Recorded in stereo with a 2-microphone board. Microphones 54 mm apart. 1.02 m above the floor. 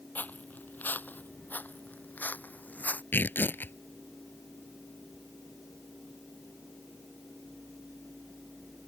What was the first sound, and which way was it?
Footsteps, 35° left (ahead or behind).